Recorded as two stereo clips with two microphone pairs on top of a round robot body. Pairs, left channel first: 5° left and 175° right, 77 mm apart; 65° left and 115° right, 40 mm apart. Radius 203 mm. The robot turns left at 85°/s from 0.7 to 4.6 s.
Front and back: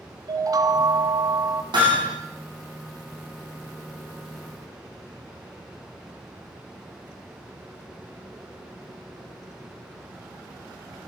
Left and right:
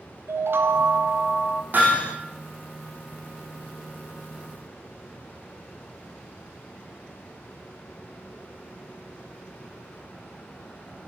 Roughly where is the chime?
Behind right.